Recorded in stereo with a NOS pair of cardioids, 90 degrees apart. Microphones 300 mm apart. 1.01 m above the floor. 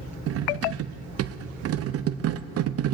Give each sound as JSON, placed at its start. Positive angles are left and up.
{"t": 0.3, "sound": "cutlery clinking", "azimuth_deg": -50, "distance_m": 0.5}